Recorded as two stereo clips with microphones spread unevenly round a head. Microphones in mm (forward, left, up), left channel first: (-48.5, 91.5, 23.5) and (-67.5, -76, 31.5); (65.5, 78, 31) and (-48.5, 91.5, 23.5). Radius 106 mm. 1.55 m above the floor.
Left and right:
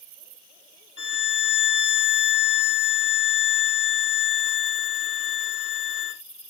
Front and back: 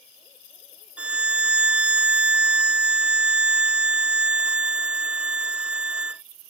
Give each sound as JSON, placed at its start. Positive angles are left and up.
{"t": 1.0, "sound": "a violin", "azimuth_deg": 95}